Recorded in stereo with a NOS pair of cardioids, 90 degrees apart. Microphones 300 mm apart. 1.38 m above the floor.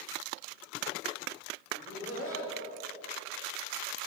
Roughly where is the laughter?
Ahead left.